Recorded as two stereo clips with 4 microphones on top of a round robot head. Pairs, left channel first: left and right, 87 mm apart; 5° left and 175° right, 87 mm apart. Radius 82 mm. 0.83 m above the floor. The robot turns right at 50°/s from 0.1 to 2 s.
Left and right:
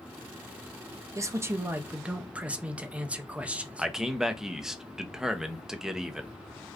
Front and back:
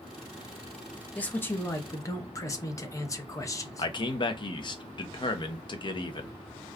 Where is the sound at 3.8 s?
5° right, 0.7 m.